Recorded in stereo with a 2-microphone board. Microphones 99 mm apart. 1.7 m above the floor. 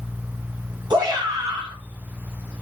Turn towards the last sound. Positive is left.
turn(degrees=-45)  # may be behind; listen again after turning